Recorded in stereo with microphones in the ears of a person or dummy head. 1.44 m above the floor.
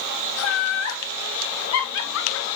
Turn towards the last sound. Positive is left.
turn(degrees=85)